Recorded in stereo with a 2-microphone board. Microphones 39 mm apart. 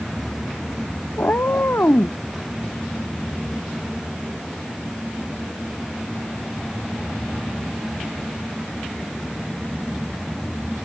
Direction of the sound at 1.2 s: 65° left (ahead or behind).